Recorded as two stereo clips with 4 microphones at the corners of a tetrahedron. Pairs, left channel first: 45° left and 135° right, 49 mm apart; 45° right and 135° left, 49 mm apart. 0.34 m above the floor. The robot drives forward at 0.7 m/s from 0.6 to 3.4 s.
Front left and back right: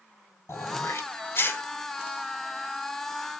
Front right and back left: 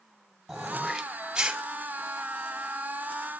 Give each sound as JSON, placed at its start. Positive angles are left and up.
{"t": 0.5, "sound": "throat clearing", "azimuth_deg": 45, "distance_m": 1.7}